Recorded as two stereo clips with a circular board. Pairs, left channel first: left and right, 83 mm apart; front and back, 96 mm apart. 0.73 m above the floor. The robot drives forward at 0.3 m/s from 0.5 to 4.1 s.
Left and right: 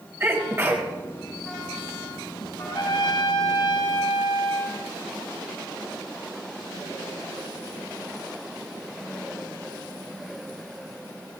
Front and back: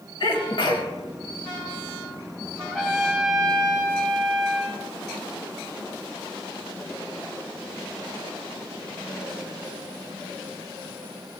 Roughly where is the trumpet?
Left.